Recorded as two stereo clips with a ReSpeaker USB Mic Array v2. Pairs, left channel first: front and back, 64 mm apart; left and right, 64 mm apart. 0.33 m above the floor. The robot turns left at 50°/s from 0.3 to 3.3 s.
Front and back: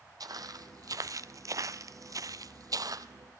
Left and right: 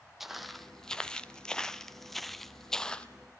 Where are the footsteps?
175° right, 1.0 m; by 3.1 s 165° left, 0.8 m.